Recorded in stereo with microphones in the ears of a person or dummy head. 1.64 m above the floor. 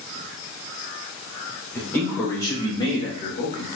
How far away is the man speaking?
About 2.5 m.